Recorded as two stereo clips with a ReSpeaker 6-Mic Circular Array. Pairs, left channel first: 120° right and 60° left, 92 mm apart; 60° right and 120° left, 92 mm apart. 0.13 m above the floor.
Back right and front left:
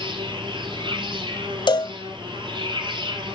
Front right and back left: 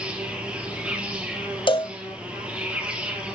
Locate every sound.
0.0 s an insect: 45° left, 2.5 m
1.7 s a cowbell: 85° right, 0.6 m